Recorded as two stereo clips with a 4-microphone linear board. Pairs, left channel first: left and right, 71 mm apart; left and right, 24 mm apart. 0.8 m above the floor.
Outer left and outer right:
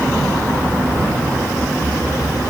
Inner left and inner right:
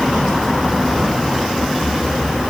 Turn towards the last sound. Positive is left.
No sound to turn to.